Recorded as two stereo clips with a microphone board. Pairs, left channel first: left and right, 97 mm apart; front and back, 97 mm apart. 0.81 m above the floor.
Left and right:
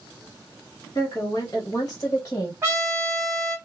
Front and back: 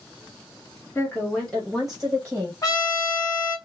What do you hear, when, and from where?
0.9 s a woman speaking: 50° left, 1.1 m; by 2.5 s 125° left, 1.0 m
2.6 s a trumpet: 35° right, 1.2 m